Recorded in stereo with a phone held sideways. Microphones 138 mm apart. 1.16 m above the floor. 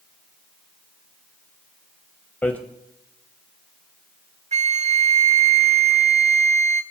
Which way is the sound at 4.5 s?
55° right (ahead or behind).